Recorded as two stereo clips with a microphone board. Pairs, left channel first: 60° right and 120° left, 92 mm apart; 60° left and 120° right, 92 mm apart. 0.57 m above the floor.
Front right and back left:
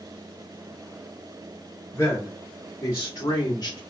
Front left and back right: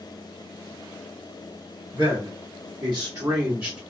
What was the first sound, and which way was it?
A man speaking, 120° right.